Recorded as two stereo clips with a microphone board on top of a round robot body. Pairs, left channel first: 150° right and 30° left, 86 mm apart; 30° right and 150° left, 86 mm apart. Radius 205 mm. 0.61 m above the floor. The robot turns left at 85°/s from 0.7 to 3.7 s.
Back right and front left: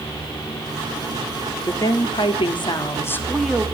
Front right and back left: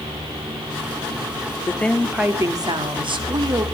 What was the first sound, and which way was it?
A woman speaking, 90° right.